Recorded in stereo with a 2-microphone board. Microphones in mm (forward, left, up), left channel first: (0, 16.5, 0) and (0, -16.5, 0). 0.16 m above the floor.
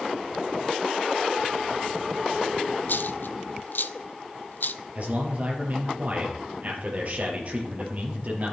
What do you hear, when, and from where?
2.9 s a dropped coin: 70° left (ahead or behind), 0.5 m
5.0 s a man speaking: 45° right (ahead or behind), 4 m